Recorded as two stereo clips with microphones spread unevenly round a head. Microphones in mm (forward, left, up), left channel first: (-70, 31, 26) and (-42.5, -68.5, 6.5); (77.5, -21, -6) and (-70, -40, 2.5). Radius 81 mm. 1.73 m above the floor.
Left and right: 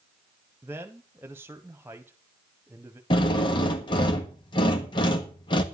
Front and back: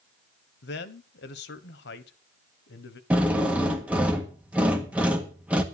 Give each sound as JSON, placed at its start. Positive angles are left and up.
{"t": 0.6, "sound": "a man speaking", "azimuth_deg": 0, "distance_m": 1.3}
{"t": 3.1, "sound": "a drill", "azimuth_deg": 110, "distance_m": 1.4}